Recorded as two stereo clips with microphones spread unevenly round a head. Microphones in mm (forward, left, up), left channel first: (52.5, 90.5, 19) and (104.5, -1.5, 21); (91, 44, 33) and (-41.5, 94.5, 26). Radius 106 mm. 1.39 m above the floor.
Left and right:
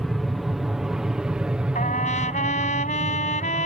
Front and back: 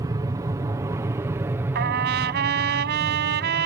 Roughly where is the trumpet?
Behind.